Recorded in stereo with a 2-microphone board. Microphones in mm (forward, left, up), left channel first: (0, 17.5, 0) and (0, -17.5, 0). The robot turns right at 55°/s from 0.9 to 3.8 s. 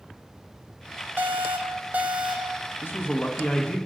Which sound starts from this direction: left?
A man speaking, at 2.8 s.